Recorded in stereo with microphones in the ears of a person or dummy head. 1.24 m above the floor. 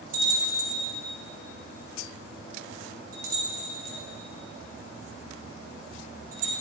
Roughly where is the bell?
Right.